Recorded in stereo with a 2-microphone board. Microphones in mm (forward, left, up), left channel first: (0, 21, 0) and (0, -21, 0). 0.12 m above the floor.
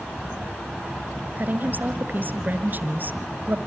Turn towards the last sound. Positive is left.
turn(degrees=-45)  # may be behind; listen again after turning